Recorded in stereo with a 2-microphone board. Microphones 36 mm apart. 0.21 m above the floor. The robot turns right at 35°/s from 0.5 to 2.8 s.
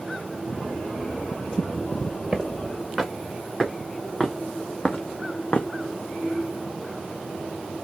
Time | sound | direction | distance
2.3 | footsteps | 25° right (ahead or behind) | 2.5 m